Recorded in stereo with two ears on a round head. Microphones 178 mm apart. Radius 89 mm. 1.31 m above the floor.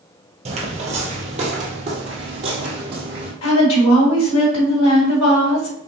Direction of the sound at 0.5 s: 30° right (ahead or behind).